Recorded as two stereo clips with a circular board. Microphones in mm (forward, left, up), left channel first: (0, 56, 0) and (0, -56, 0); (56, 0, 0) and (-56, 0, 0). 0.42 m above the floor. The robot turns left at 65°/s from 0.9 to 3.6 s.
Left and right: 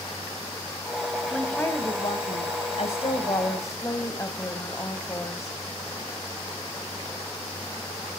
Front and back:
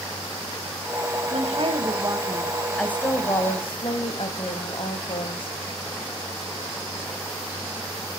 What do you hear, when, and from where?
1.3 s a woman speaking: straight behind, 2 m; by 5.6 s 30° left, 2 m